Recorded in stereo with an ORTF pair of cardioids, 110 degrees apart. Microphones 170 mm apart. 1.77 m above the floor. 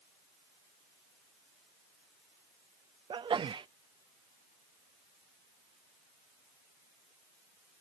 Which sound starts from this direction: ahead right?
A sneeze, at 3.1 s.